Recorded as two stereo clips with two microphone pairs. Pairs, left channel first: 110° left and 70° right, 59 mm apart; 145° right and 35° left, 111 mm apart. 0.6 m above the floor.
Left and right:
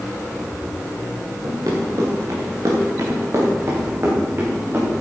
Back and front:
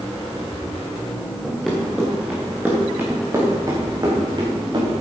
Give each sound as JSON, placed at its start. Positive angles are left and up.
{"t": 1.4, "sound": "running footsteps", "azimuth_deg": -60, "distance_m": 4.0}